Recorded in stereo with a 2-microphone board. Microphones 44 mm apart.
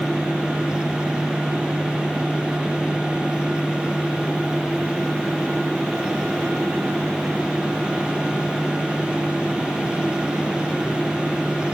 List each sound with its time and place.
Only background noise.